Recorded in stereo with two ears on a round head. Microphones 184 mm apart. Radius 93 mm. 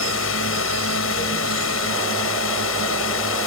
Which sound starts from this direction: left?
A drone, at 0.0 s.